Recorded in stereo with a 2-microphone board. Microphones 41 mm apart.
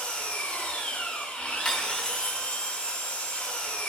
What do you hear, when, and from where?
0.0 s an engine running: 35° left (ahead or behind), 3 m
1.6 s cutlery clinking: 20° left (ahead or behind), 2.0 m